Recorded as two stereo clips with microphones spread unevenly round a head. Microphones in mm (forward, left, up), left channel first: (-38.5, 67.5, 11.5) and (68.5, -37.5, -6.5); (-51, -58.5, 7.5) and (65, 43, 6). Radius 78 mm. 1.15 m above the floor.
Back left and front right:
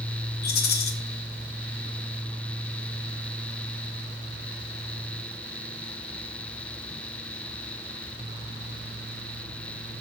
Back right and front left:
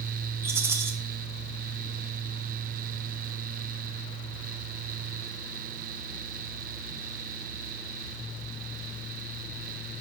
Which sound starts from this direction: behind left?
A rattle, at 0.4 s.